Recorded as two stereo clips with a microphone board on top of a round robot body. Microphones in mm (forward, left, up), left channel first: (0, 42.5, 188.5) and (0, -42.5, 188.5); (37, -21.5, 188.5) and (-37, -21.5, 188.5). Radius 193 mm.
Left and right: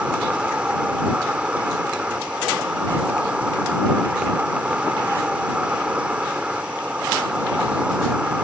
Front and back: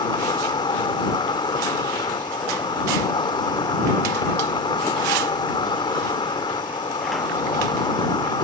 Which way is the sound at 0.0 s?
10° right.